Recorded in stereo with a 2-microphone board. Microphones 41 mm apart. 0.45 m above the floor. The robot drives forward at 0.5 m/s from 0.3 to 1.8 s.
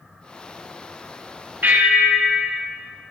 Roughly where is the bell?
Right.